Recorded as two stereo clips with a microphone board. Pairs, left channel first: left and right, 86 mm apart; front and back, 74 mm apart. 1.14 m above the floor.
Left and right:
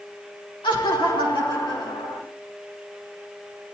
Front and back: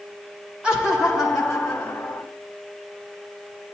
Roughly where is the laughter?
Left.